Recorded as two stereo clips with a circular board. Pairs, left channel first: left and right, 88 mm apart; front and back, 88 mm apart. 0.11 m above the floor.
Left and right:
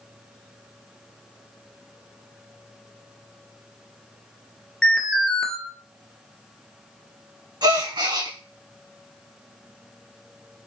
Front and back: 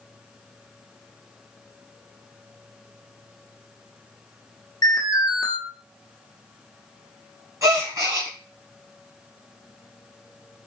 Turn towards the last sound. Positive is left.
turn(degrees=-125)